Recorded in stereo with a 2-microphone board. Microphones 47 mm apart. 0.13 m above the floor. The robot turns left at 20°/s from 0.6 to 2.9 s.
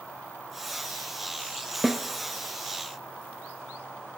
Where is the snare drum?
5° right (ahead or behind), 0.6 m.